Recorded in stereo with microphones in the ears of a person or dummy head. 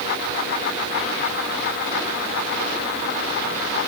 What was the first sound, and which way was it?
Only background noise.